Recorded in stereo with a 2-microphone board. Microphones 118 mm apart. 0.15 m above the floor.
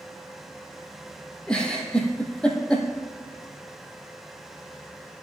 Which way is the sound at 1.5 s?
10° left (ahead or behind).